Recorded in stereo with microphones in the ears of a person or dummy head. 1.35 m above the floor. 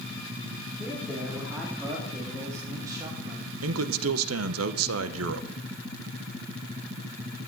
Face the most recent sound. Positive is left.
turn(degrees=-75)  # may be behind; listen again after turning